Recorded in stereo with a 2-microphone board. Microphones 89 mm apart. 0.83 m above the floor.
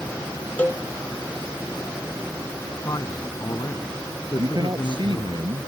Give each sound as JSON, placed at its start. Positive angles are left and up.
{"t": 0.6, "sound": "a cowbell", "side_deg": 20}
{"t": 2.8, "sound": "a man speaking", "side_deg": 45}
{"t": 4.4, "sound": "a man speaking", "side_deg": -60}